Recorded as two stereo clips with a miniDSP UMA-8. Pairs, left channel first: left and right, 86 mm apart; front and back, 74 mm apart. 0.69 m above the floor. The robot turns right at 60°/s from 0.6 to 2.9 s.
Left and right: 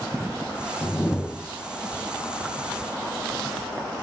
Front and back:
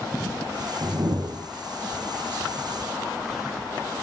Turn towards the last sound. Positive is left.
turn(degrees=-85)